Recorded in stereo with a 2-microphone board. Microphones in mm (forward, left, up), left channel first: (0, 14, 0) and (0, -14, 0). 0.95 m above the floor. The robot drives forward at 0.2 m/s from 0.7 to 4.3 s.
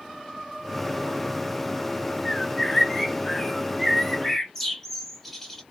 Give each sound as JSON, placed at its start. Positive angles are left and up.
{"t": 2.2, "sound": "a bird", "side_deg": 10, "distance_m": 0.5}